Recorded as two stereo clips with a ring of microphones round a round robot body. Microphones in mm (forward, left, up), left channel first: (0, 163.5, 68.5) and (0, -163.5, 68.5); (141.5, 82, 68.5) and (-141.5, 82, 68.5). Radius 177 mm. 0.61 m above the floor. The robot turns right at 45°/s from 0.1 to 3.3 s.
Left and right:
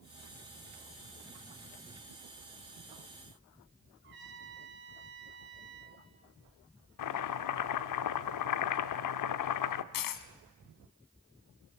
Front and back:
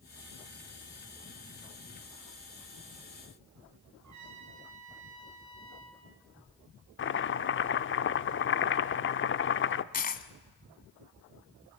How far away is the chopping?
About 0.7 m.